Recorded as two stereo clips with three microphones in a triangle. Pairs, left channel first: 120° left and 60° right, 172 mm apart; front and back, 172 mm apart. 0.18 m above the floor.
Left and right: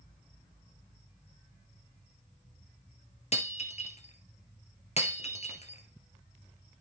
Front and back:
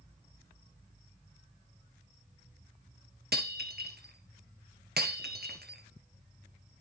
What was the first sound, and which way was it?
Breaking glass, 170° left.